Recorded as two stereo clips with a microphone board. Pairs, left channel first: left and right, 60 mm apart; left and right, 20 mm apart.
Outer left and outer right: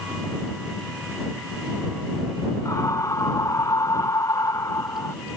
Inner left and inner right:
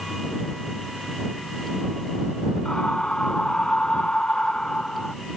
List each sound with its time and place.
2.6 s a scream: 65° left (ahead or behind)